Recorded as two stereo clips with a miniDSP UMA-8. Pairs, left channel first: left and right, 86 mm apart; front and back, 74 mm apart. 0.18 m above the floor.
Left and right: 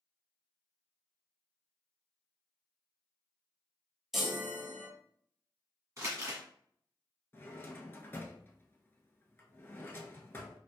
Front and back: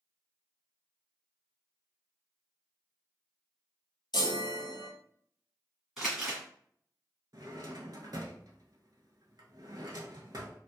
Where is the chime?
5° right, 0.8 m.